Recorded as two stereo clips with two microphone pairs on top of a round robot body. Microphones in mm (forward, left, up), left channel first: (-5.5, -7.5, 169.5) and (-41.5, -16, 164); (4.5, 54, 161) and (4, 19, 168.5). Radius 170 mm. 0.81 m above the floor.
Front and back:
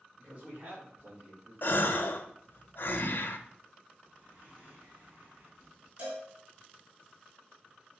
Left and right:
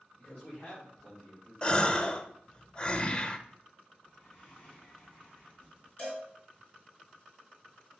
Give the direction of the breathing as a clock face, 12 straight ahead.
7 o'clock.